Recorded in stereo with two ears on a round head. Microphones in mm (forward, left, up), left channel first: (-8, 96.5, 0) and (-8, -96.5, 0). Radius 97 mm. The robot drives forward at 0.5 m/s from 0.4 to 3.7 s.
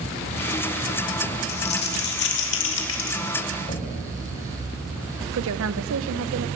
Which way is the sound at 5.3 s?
75° right (ahead or behind).